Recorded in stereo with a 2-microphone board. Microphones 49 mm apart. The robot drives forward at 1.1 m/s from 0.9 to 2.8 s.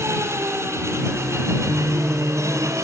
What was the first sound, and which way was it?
An engine running, 65° right (ahead or behind).